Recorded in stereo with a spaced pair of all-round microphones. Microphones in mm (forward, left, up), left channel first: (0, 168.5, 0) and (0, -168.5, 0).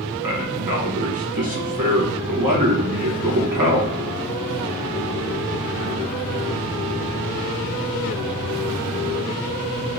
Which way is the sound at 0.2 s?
80° right.